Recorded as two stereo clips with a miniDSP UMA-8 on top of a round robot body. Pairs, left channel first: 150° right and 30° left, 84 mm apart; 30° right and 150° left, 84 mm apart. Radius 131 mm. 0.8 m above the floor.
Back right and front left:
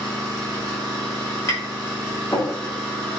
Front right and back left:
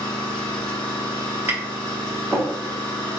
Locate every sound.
0.0 s an engine running: 10° right, 1.3 m
1.5 s tapping: 160° right, 1.2 m